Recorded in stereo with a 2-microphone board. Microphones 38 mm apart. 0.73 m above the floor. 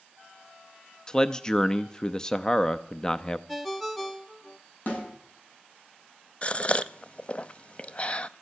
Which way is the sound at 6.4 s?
30° left (ahead or behind).